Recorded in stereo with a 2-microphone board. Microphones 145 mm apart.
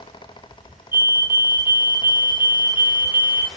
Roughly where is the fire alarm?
Centre.